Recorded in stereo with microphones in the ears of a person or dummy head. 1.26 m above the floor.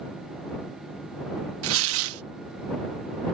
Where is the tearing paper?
85° right.